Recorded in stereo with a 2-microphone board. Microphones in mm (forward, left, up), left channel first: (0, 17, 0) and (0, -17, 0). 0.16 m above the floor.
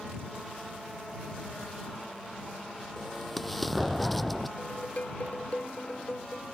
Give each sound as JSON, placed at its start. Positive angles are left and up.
{"t": 3.0, "sound": "an explosion", "side_deg": 5}
{"t": 4.6, "sound": "dishes clattering", "side_deg": 50}